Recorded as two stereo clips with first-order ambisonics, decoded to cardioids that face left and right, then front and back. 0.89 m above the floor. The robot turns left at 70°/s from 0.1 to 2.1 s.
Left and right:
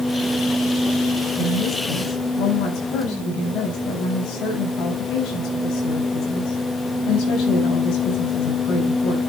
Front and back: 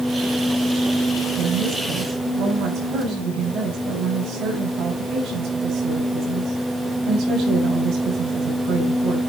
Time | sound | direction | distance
1.4 | a woman speaking | straight behind | 6.5 m